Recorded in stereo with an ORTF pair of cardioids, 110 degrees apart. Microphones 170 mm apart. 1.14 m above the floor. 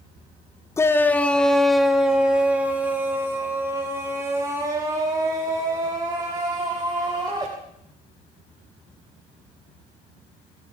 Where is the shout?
15° left, 1.1 m; by 7.5 s 25° right, 4.5 m.